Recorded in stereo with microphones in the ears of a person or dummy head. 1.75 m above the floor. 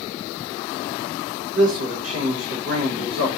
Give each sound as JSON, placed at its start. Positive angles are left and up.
{"t": 1.5, "sound": "a man speaking", "side_deg": -70, "distance_m": 0.9}